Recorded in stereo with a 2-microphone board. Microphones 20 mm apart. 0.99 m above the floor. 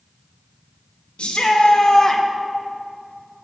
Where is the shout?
60° left (ahead or behind), 1.0 m; by 2.2 s 10° left (ahead or behind), 0.7 m.